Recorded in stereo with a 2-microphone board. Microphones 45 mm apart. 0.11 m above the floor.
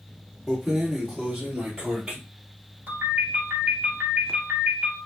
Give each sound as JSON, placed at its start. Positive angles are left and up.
{"t": 0.5, "sound": "keys jangling", "side_deg": -5, "distance_m": 1.1}
{"t": 2.9, "sound": "a ringtone", "side_deg": -45, "distance_m": 1.7}